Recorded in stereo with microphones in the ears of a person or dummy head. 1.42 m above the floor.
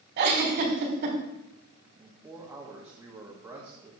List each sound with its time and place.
0.2 s a giggle: 50° right (ahead or behind), 3 m
2.0 s a man speaking: 15° right (ahead or behind), 1.8 m